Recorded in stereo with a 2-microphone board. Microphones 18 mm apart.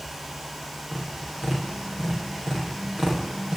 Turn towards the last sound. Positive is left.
turn(degrees=-45)  # may be behind; listen again after turning